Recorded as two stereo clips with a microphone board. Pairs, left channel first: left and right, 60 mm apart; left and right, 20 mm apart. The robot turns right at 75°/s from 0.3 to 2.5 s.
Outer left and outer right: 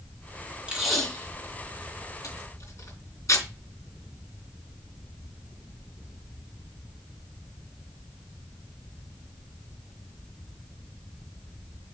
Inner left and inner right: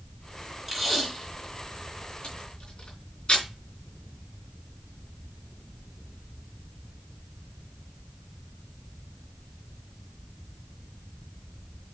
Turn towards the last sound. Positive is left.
turn(degrees=55)  # may be behind; listen again after turning